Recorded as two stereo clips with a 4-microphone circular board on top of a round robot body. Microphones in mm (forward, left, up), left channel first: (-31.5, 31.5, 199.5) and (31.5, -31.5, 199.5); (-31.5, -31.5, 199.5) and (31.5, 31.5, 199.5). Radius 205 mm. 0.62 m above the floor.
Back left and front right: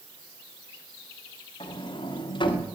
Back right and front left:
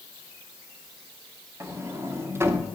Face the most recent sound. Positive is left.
turn(degrees=110)